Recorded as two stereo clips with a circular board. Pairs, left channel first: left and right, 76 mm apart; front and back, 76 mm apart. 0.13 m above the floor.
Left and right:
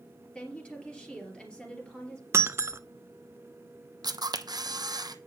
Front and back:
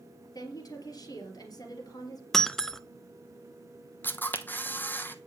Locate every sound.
0.3 s a woman speaking: 15° left, 3 m
2.3 s breaking glass: 80° right, 0.5 m
4.0 s a camera shutter: 65° right, 0.8 m